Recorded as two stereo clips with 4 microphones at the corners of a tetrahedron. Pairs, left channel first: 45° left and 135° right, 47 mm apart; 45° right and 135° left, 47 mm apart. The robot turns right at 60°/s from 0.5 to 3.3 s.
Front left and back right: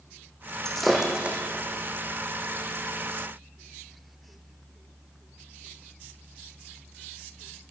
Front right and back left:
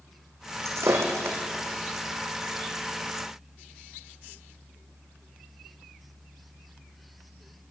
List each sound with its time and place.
0.7 s breaking glass: 125° left, 3 m; by 1.4 s 170° left, 3 m